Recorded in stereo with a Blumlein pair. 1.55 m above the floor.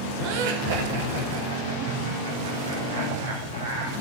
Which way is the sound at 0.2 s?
45° right.